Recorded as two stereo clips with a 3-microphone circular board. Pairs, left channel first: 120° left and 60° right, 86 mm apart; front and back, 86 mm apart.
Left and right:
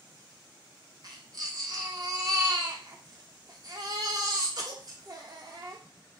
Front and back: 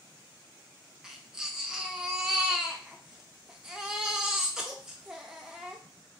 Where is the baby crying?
100° right, 0.6 m.